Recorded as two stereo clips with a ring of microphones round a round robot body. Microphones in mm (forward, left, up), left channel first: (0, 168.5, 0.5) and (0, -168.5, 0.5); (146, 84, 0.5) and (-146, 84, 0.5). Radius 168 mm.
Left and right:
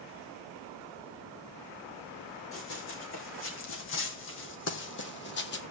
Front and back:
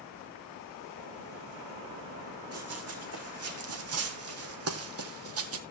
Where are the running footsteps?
145° left, 3.5 m.